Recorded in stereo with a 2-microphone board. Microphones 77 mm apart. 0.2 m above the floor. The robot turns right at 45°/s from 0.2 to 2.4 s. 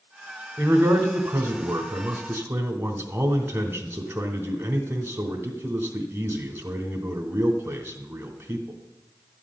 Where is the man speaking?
135° right, 1.2 m; by 8.8 s 50° right, 1.2 m.